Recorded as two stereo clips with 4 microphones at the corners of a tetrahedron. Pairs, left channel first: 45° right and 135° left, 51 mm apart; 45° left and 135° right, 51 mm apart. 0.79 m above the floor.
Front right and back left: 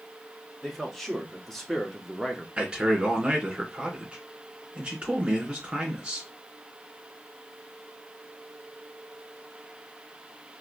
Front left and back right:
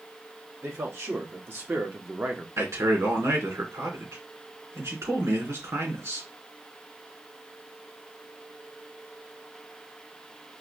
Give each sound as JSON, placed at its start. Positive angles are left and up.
{"t": 0.6, "sound": "a man speaking", "azimuth_deg": -130, "distance_m": 2.0}
{"t": 2.6, "sound": "a man speaking", "azimuth_deg": -150, "distance_m": 3.0}